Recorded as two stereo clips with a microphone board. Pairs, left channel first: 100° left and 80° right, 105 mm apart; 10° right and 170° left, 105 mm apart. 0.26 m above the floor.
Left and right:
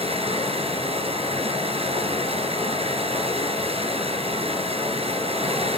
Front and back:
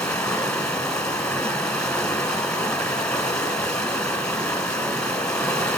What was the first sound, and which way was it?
Running water, 90° right.